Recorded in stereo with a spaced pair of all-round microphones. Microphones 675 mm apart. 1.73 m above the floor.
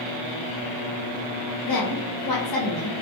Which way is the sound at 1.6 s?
40° left (ahead or behind).